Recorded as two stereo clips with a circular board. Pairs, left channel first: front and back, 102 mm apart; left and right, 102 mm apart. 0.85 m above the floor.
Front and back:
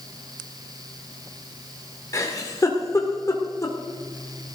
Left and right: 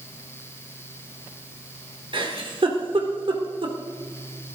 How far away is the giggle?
About 1.9 m.